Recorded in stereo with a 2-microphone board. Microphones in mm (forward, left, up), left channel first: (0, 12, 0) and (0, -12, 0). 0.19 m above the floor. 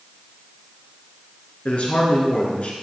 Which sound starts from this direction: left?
A man speaking, at 1.6 s.